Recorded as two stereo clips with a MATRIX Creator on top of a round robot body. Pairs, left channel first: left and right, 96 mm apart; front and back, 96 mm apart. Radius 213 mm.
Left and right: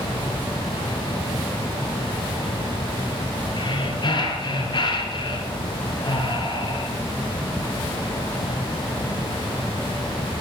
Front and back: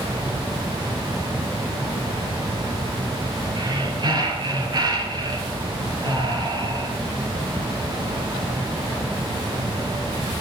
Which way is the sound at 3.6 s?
135° left.